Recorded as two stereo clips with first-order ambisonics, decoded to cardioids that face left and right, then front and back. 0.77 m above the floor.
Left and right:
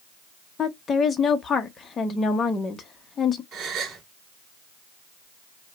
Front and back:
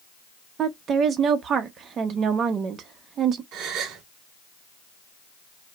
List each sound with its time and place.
0.6 s a woman speaking: 145° left, 0.7 m
3.5 s a gasp: 140° right, 2.5 m